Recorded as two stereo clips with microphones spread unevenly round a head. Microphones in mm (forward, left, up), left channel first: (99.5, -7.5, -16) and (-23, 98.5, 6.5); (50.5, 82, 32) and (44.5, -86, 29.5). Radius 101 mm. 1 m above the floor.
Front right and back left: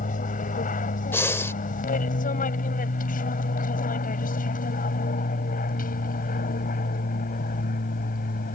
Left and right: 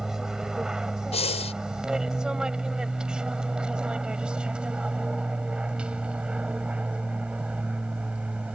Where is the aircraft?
5° right; by 8.6 s 10° right.